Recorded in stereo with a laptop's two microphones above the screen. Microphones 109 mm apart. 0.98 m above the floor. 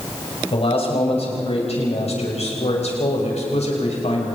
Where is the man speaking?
60° left (ahead or behind), 6.5 m; by 4.3 s 80° left, 5.5 m.